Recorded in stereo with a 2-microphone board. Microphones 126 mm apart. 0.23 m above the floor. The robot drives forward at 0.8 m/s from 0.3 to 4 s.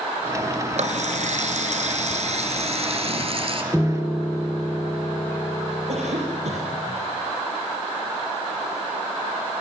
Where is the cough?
65° right (ahead or behind), 7 m.